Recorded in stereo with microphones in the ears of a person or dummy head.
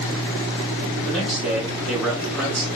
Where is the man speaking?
Centre (ahead or behind), 3 m.